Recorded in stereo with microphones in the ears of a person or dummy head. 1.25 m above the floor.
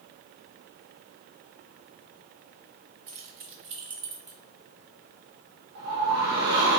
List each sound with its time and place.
3.1 s keys jangling: 50° right (ahead or behind), 1.1 m; by 4.4 s 10° right (ahead or behind), 0.9 m
5.8 s a whoosh: 70° right (ahead or behind), 0.8 m